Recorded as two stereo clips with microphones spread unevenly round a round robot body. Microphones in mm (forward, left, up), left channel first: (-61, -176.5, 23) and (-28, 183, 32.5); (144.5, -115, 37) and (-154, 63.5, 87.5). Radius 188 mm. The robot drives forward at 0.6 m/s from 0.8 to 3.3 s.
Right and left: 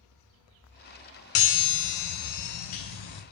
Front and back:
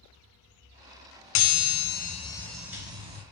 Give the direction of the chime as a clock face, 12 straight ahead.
2 o'clock.